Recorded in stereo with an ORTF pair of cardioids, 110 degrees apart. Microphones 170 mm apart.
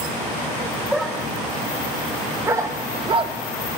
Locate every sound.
0.9 s a dog barking: straight ahead, 2.5 m; by 3.4 s 50° right, 1.1 m